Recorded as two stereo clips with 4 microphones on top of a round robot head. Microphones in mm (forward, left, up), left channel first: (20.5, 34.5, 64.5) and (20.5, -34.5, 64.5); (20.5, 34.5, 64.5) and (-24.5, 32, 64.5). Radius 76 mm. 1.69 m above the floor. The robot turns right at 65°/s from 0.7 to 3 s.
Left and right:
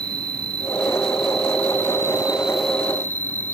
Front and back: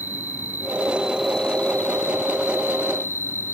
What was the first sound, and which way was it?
An insect, 125° right.